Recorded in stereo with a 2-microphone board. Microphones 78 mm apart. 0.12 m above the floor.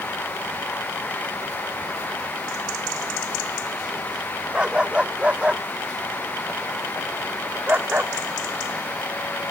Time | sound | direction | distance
4.5 | a dog barking | 15° right (ahead or behind) | ?